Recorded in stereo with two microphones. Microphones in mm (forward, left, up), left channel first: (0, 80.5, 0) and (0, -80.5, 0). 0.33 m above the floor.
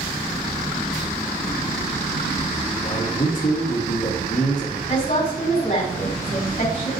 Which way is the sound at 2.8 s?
55° left (ahead or behind).